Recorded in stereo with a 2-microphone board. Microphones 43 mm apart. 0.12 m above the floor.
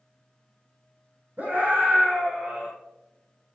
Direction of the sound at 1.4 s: 40° right (ahead or behind).